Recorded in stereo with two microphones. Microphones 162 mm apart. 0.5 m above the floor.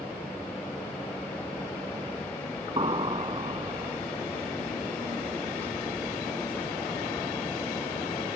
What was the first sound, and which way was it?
An explosion, 30° right (ahead or behind).